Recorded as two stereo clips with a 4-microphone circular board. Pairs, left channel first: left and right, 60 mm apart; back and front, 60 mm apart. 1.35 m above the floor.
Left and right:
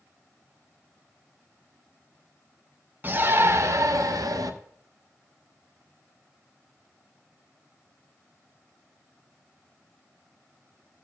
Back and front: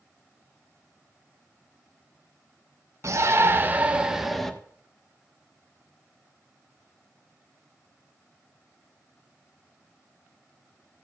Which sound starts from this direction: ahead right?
A shout, at 3.0 s.